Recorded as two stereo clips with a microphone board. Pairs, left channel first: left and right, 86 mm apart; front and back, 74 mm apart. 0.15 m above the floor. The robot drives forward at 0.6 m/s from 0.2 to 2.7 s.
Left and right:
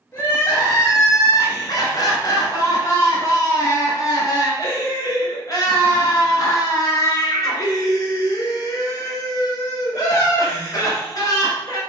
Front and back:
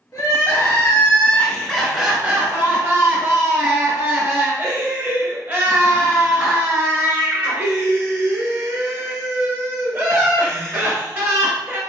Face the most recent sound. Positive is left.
turn(degrees=130)